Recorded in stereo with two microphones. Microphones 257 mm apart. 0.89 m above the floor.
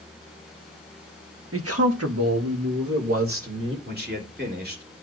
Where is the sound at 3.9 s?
40° right (ahead or behind), 2.5 m.